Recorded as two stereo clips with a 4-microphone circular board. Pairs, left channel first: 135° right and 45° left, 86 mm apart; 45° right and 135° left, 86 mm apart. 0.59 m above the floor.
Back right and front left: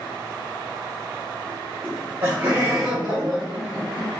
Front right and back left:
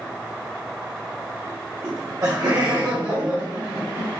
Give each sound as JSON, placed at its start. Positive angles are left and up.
{"t": 1.8, "sound": "laughter", "azimuth_deg": 95, "distance_m": 0.9}